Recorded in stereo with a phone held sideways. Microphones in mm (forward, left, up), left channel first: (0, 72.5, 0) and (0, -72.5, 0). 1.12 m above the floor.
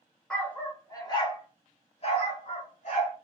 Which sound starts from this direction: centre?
A dog barking, at 0.3 s.